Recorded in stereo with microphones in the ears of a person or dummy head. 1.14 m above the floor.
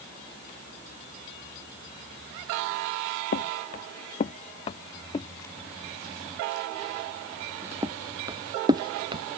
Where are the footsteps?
55° left (ahead or behind); by 9.2 s 30° right (ahead or behind).